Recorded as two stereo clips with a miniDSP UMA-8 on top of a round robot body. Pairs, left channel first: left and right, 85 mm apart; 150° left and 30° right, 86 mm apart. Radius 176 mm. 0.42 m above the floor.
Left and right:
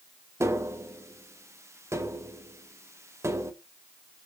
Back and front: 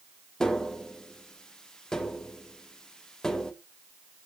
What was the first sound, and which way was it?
Tapping, 130° right.